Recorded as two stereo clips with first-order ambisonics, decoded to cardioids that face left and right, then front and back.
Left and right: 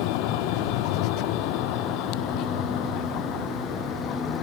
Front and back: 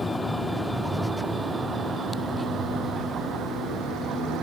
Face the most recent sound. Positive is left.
turn(degrees=135)